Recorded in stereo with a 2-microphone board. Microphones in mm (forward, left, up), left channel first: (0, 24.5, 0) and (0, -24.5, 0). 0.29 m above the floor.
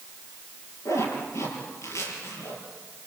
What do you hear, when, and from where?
0.8 s a zipper: 80° left, 6.5 m